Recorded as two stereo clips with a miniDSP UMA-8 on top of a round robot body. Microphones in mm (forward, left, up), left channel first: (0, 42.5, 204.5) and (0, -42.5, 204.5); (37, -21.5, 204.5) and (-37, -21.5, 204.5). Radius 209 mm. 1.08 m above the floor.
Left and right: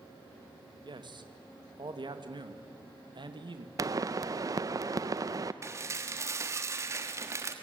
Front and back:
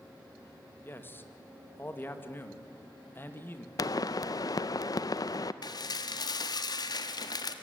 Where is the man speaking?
60° right, 2 m.